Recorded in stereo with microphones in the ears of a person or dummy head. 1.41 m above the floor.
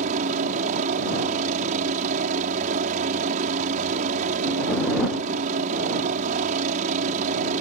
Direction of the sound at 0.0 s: 40° right (ahead or behind).